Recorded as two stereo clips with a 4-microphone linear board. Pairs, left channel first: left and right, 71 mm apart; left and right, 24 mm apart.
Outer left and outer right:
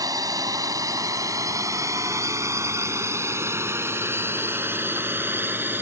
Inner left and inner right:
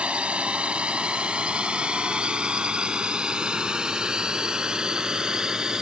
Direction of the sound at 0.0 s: 55° right (ahead or behind).